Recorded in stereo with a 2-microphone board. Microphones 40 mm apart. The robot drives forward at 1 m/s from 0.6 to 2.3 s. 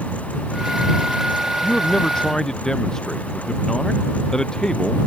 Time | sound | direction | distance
1.6 | a man speaking | 20° left (ahead or behind) | ?